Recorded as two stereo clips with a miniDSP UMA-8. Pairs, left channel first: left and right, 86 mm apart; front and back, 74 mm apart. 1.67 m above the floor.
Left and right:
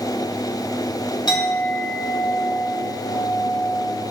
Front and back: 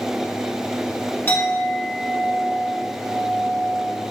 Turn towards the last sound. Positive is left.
turn(degrees=60)